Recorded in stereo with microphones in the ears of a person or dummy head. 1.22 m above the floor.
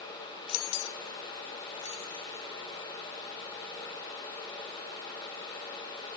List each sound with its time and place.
0.5 s keys jangling: 75° left (ahead or behind), 0.7 m; by 2.5 s 10° left (ahead or behind), 0.8 m